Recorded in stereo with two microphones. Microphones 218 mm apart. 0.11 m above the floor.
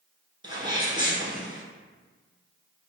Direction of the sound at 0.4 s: 20° right (ahead or behind).